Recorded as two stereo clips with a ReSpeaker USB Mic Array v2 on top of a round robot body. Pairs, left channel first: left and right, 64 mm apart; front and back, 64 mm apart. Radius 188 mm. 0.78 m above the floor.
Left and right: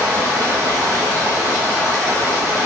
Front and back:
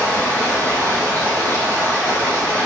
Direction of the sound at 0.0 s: 65° right.